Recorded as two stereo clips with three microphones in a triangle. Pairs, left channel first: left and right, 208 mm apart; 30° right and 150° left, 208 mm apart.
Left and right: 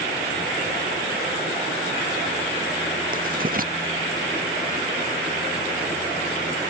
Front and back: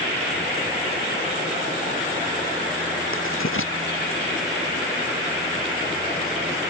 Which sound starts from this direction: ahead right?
Writing, at 3.1 s.